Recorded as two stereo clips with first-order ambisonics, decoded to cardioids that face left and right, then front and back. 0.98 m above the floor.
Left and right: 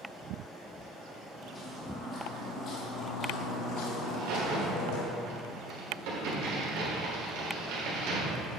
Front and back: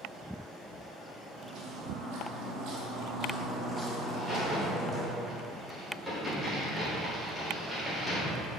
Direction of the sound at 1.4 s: 165° left.